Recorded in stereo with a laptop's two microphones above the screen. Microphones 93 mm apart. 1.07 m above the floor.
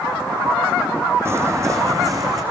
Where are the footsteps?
30° right (ahead or behind), 3 m; by 2.4 s 40° right (ahead or behind), 4.5 m.